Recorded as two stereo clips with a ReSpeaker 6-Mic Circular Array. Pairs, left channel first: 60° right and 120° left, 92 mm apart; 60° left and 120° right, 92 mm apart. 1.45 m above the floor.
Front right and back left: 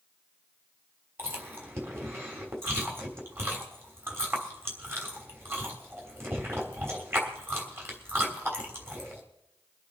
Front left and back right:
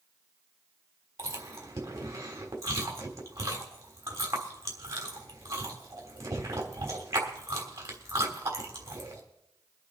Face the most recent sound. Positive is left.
turn(degrees=-175)